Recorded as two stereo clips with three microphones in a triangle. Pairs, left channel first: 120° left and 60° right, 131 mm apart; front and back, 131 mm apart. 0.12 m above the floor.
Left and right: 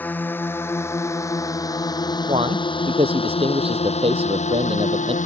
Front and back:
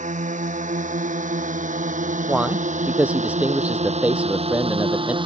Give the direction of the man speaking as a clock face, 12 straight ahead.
3 o'clock.